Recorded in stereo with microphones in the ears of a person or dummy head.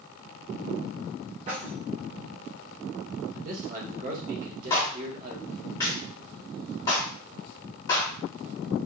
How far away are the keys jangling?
About 0.8 m.